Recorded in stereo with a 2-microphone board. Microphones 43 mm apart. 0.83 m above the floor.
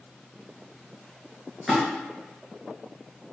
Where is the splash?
5° right (ahead or behind), 1.8 m.